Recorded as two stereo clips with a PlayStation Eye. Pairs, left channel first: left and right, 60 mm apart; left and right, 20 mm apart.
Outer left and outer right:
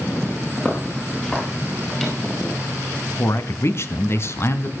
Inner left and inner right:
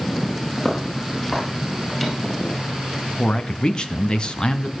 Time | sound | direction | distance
0.6 | footsteps | 25° left (ahead or behind) | 7 m
3.2 | a man speaking | 45° left (ahead or behind) | 1.7 m